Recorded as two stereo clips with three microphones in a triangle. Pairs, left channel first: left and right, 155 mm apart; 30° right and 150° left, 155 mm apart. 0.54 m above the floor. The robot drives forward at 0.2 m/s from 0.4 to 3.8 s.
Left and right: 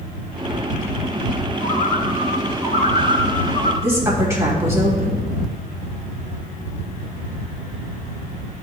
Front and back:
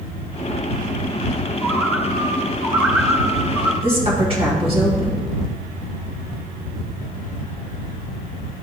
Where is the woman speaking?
160° right, 3 m.